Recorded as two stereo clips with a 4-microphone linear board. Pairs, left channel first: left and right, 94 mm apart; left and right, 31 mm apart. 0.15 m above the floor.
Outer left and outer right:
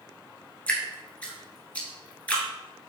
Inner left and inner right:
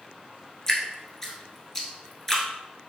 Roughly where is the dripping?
Centre.